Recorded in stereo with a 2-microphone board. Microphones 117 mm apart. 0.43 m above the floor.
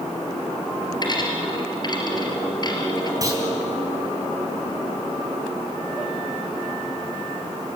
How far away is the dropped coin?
About 3.5 m.